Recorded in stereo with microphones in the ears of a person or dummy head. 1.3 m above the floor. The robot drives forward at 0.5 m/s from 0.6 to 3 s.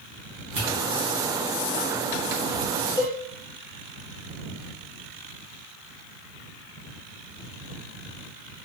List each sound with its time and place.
0.6 s a pop: 15° right (ahead or behind), 1.8 m
3.0 s a cowbell: 15° left (ahead or behind), 0.9 m